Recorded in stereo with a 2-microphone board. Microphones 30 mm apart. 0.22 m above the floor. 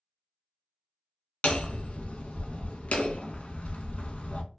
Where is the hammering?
50° left (ahead or behind), 0.5 m.